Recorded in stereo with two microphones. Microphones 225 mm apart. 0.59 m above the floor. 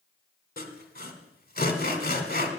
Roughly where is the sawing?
Left.